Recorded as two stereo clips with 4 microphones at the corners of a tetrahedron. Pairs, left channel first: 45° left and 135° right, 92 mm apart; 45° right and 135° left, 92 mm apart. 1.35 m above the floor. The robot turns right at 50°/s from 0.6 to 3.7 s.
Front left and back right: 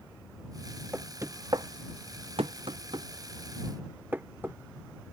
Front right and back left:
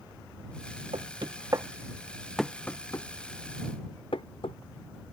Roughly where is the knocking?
Behind left.